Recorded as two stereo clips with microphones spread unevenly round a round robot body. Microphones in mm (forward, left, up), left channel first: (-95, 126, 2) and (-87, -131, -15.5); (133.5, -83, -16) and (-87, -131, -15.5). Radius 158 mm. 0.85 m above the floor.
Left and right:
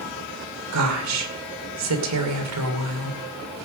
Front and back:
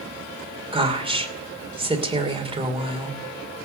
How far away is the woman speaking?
About 2.5 m.